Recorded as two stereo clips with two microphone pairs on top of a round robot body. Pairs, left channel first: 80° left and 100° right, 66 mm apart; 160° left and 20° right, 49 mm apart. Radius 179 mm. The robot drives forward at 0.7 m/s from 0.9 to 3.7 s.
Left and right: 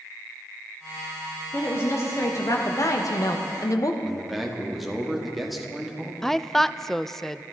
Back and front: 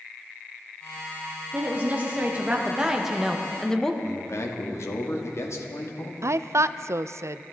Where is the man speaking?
175° left, 2.5 m.